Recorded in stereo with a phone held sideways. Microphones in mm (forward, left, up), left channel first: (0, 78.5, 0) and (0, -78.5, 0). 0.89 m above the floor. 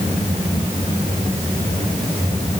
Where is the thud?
No thud in this recording.